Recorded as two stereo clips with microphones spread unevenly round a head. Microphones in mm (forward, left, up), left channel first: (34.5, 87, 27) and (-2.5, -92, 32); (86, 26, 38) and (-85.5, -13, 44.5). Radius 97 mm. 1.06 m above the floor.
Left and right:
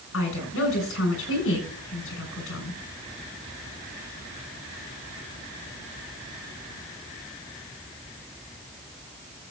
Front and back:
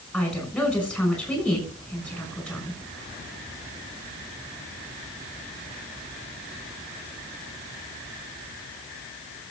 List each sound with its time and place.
0.1 s a woman speaking: 100° left, 6 m